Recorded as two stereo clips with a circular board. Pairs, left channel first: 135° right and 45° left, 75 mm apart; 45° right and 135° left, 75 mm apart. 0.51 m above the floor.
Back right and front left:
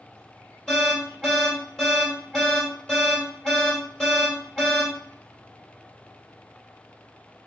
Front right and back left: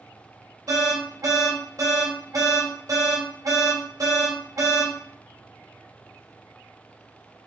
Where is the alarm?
145° left, 2 m.